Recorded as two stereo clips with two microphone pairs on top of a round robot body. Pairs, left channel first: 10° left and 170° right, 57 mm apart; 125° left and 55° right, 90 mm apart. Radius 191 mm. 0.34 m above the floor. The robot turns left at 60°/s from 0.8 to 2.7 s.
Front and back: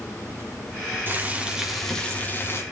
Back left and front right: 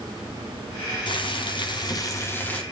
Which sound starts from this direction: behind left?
Boiling, at 1.1 s.